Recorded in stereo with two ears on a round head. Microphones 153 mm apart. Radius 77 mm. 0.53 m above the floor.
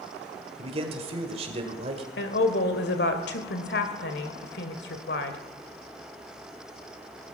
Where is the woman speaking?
65° left (ahead or behind), 1.9 m.